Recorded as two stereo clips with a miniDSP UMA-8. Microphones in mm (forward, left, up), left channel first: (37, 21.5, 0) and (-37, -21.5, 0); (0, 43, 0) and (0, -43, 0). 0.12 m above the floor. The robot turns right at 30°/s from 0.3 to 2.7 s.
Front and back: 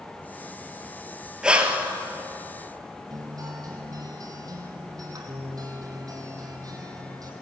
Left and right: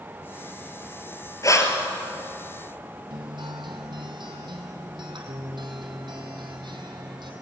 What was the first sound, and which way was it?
Breathing, 130° left.